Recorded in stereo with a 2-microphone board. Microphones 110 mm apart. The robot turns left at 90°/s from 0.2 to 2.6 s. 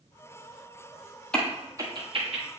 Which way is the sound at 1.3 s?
10° left (ahead or behind).